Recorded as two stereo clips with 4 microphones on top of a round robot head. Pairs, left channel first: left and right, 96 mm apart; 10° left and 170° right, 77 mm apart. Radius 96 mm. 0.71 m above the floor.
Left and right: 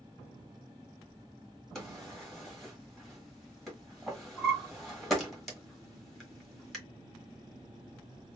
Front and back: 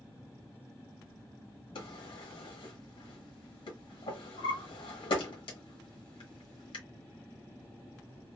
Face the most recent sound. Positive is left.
turn(degrees=0)